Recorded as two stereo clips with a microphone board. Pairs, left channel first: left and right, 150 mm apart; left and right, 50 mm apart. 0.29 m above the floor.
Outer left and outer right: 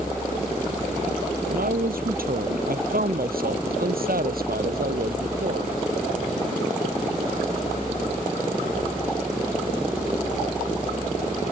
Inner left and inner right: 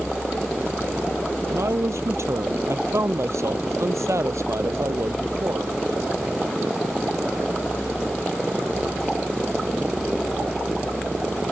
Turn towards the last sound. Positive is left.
turn(degrees=-80)